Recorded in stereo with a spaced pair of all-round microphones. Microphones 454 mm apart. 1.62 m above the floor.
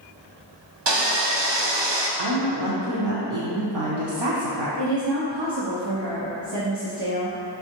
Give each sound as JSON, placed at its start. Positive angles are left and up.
{"t": 0.9, "sound": "sawing", "side_deg": -65, "distance_m": 0.6}
{"t": 2.2, "sound": "a woman speaking", "side_deg": -65, "distance_m": 0.7}
{"t": 4.8, "sound": "a woman speaking", "side_deg": -65, "distance_m": 0.6}